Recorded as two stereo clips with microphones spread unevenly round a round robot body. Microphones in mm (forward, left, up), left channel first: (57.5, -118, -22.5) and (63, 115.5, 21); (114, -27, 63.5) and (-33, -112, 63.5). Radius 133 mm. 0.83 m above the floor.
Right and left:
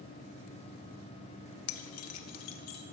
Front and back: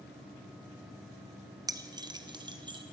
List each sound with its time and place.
1.7 s keys jangling: 80° right, 0.6 m; by 2.8 s 85° right, 1.2 m